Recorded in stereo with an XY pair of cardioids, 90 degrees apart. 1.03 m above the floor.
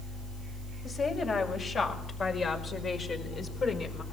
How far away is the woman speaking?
About 6.5 m.